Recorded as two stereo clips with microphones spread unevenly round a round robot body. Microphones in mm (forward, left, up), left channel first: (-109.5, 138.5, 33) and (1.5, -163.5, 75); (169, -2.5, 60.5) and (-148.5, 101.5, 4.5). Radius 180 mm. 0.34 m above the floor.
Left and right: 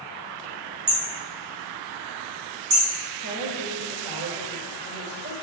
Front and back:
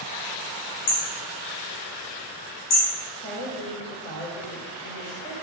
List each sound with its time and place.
0.9 s hammering: 25° right, 3 m
3.2 s a woman speaking: 75° right, 2 m